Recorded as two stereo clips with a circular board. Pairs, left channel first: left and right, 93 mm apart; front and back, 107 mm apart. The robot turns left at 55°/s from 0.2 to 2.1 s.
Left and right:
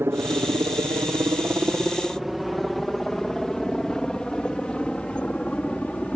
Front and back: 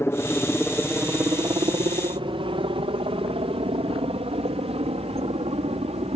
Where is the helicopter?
45° right; by 6.2 s 165° left.